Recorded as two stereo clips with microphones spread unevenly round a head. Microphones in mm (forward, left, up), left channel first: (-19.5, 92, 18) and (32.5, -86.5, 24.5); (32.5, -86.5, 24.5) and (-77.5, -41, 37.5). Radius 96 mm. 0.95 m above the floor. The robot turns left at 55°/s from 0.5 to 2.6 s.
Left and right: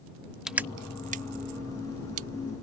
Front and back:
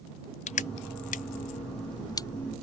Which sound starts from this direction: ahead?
Crushing, at 0.5 s.